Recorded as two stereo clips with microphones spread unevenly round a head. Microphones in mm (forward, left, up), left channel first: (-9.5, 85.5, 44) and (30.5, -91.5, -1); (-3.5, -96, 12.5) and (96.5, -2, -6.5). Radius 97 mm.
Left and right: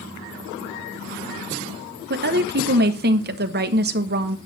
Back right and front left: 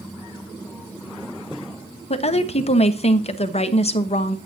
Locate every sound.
2.1 s a woman speaking: 90° right, 1.3 m